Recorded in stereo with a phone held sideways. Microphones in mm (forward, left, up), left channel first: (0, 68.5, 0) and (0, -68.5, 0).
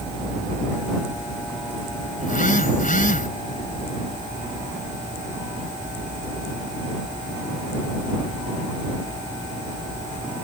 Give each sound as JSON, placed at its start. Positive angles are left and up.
{"t": 2.2, "sound": "a phone buzzing", "side_deg": 85}